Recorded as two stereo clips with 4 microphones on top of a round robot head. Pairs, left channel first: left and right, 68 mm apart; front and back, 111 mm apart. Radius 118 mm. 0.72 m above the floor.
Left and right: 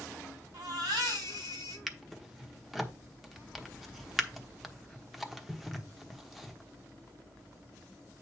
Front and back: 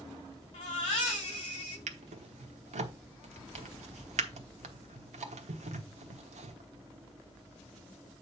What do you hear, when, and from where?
0.5 s a baby crying: 50° right, 4 m
1.9 s a drawer: straight behind, 1.1 m